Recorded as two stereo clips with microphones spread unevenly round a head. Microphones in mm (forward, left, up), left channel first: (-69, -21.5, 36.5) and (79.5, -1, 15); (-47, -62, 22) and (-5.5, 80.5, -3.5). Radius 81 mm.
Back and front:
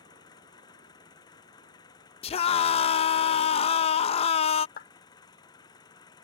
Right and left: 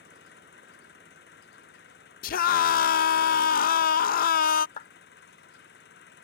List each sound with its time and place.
0.0 s an engine running: 110° right
2.2 s a scream: 125° right
4.8 s a clap: 145° right